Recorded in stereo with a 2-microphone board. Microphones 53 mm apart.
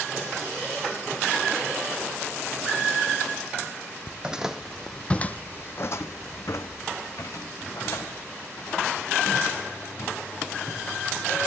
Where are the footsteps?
20° right (ahead or behind), 0.7 m; by 11.4 s 80° left, 3.5 m.